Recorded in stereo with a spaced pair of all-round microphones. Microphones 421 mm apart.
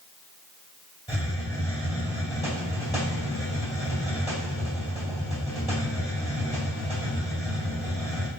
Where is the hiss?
10° left (ahead or behind), 2 m.